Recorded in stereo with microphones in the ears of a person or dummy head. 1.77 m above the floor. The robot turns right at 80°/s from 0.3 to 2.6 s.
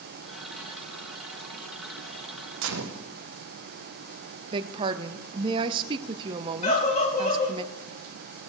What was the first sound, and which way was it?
A gunshot, 70° right (ahead or behind).